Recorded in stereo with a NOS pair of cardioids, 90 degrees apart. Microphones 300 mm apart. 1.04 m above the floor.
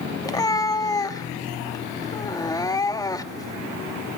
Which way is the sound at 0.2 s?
10° left.